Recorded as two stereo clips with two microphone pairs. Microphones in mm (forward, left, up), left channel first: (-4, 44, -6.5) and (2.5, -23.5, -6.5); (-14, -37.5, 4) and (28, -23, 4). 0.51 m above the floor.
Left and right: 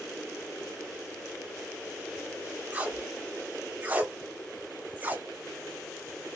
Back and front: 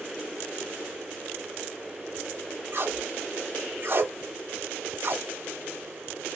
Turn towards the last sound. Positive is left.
turn(degrees=-20)